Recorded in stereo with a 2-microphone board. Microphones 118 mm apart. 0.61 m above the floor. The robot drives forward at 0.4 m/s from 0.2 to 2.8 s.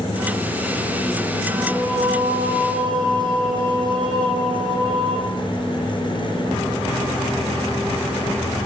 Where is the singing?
40° right (ahead or behind), 5 m.